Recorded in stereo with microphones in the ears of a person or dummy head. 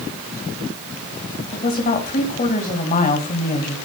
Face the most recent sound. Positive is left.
turn(degrees=35)  # may be behind; listen again after turning